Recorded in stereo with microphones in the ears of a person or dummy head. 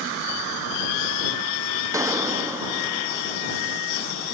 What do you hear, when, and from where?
1.9 s a gunshot: 15° right (ahead or behind)